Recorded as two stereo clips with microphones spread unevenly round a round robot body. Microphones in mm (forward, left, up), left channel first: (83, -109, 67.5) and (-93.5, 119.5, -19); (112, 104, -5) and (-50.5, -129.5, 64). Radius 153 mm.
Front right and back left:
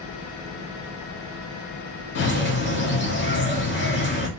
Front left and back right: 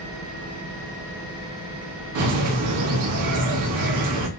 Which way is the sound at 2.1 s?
110° right.